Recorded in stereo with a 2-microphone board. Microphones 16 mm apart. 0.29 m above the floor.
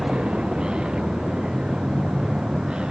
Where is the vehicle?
85° right; by 2.9 s 90° right.